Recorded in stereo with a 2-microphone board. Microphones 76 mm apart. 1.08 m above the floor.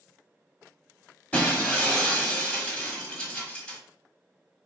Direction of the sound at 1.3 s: 20° left (ahead or behind).